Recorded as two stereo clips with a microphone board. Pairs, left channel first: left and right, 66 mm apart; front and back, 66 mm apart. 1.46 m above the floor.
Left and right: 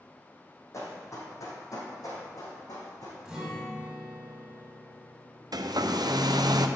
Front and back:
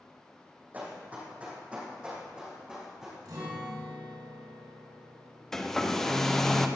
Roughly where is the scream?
I don't hear a scream.